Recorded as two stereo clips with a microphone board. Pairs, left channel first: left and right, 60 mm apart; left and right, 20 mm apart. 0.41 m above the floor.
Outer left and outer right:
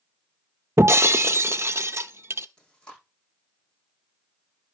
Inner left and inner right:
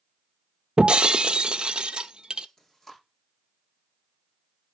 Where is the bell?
No bell in this recording.